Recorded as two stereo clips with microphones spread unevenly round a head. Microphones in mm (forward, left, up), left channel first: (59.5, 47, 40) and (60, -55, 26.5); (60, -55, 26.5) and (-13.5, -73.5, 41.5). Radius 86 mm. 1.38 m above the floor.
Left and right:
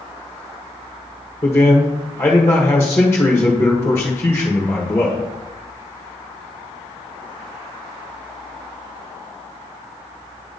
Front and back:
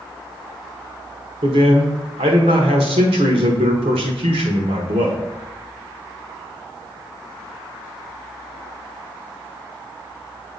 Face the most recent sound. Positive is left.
turn(degrees=165)